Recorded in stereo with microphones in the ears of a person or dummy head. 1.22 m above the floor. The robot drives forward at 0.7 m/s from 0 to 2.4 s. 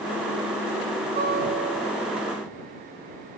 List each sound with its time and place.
1.2 s a guitar: 50° right (ahead or behind), 4 m; by 2.3 s 60° right (ahead or behind), 3.5 m